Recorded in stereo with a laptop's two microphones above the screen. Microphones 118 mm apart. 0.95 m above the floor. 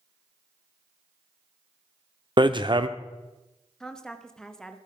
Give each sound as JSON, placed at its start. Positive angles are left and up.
{"t": 2.4, "sound": "hammering", "side_deg": -40, "distance_m": 0.6}
{"t": 3.8, "sound": "a woman speaking", "side_deg": 5, "distance_m": 0.8}